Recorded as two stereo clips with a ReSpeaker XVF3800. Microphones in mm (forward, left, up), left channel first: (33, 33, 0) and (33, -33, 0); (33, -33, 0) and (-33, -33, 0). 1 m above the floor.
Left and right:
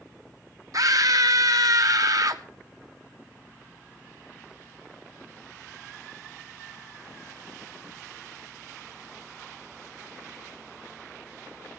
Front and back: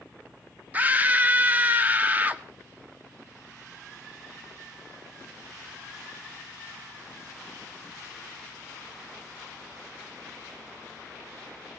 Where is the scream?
115° right, 1.6 m.